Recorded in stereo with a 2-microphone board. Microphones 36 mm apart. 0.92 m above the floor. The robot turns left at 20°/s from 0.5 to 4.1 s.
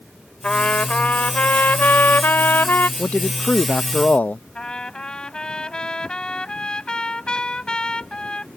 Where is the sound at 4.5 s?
25° left (ahead or behind).